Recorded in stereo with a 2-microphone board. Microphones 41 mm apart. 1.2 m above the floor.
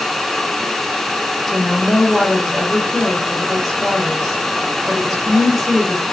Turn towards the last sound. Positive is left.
turn(degrees=0)  # may be behind; listen again after turning